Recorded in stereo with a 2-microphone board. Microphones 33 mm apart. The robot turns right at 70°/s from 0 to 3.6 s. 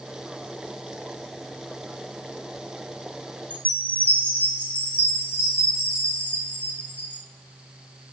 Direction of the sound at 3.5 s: 50° left (ahead or behind).